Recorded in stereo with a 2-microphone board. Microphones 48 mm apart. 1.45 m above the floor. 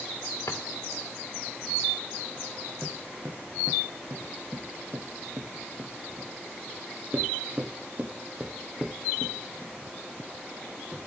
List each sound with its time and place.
0.5 s a drawer: 70° left (ahead or behind), 2.5 m
2.8 s footsteps: 50° right (ahead or behind), 3.5 m; by 11.1 s 5° right (ahead or behind), 3 m